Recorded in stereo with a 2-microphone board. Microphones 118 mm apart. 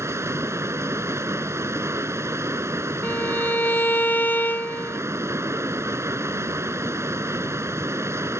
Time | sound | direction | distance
0.0 | running water | 20° right (ahead or behind) | ?
3.0 | a violin | 15° left (ahead or behind) | ?